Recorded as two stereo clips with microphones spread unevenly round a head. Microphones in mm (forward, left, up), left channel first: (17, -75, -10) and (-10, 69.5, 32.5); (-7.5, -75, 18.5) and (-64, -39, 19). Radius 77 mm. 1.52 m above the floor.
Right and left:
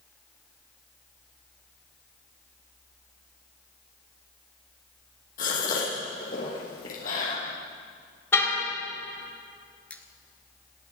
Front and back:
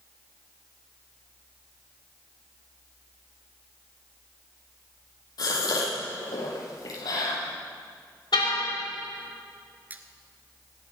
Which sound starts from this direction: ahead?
A car horn, at 8.3 s.